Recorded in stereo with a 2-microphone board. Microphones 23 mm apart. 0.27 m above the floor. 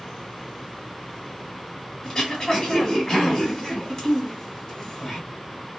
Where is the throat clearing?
20° left (ahead or behind), 1.7 m.